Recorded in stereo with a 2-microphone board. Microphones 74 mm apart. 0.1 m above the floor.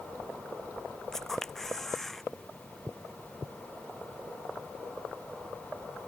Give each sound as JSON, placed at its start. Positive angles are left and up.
{"t": 1.1, "sound": "a camera shutter", "side_deg": 5}